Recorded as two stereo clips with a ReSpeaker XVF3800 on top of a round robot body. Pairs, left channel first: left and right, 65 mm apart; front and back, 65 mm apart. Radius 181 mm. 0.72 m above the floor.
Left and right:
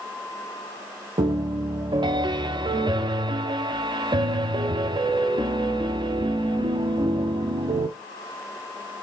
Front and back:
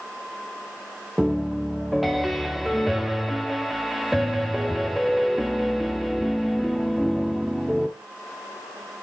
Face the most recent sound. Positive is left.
turn(degrees=-90)